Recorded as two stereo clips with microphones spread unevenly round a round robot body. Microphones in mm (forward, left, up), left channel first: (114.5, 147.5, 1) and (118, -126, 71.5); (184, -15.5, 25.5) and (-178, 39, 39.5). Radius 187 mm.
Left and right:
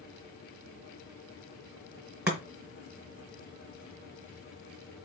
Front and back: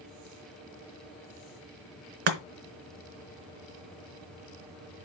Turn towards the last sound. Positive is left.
turn(degrees=180)